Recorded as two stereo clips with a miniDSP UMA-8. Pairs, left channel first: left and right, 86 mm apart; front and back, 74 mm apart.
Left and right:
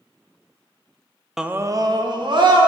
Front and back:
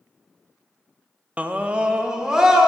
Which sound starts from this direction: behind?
A scream, at 1.4 s.